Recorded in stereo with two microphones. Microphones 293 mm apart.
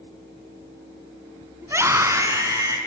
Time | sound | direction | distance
1.6 | a scream | 10° right (ahead or behind) | 2 m